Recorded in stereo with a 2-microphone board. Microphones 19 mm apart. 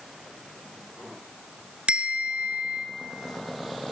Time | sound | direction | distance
1.9 | a bell | 70° right (ahead or behind) | 1.1 m